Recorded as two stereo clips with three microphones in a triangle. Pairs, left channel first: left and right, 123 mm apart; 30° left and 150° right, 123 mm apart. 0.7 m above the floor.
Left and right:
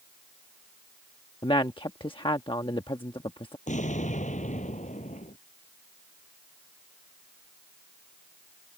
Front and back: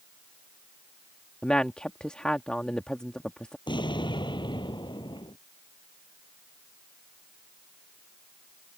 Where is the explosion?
80° left.